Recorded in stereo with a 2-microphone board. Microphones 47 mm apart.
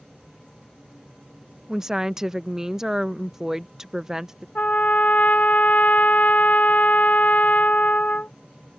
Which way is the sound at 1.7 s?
10° right (ahead or behind).